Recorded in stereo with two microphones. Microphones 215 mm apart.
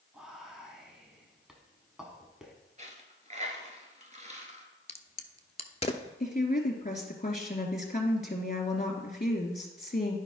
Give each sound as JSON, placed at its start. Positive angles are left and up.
{"t": 0.1, "sound": "whispering", "side_deg": -5, "distance_m": 1.1}
{"t": 2.8, "sound": "a dropped coin", "side_deg": -35, "distance_m": 1.3}
{"t": 4.9, "sound": "a crack", "side_deg": 30, "distance_m": 0.6}
{"t": 6.2, "sound": "a woman speaking", "side_deg": 40, "distance_m": 2.0}